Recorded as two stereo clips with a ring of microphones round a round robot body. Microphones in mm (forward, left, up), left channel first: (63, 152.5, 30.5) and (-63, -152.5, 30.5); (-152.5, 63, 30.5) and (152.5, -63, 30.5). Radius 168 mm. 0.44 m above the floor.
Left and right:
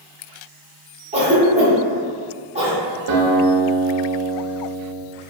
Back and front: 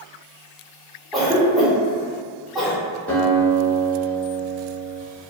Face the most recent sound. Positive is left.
turn(degrees=-115)